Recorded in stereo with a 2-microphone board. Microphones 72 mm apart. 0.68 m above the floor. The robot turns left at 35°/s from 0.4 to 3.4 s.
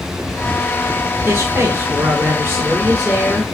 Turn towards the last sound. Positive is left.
turn(degrees=180)